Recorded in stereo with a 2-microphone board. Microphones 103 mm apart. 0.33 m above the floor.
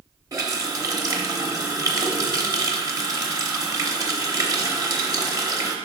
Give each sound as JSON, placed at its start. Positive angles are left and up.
{"t": 0.3, "sound": "a running tap", "side_deg": -40, "distance_m": 0.8}